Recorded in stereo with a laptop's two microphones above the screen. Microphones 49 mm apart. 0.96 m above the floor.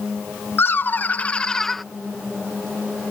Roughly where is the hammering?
I don't hear hammering.